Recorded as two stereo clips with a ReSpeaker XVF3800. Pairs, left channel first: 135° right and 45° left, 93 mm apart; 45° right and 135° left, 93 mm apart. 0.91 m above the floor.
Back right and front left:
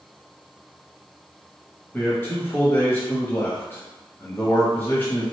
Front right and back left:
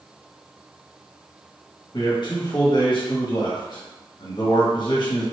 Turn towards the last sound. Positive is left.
turn(degrees=-70)